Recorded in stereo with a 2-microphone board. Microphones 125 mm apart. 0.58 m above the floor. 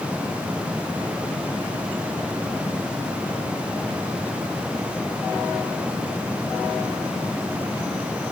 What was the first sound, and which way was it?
Only background noise.